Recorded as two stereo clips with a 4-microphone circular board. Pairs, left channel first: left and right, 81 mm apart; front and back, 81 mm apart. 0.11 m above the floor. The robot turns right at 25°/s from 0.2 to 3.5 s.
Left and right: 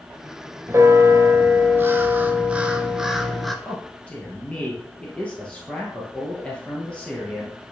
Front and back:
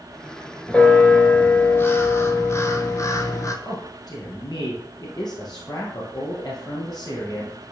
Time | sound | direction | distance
0.7 | a bell | 70° right | 0.7 m
3.6 | a man speaking | 20° left | 2 m